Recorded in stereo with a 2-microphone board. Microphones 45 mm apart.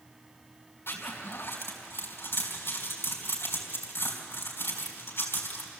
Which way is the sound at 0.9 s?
60° left (ahead or behind).